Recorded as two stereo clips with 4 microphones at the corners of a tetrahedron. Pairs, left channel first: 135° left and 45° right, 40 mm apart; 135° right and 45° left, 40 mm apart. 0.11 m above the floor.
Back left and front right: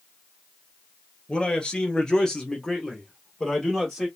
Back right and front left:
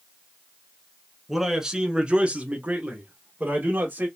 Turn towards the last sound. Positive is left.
turn(degrees=50)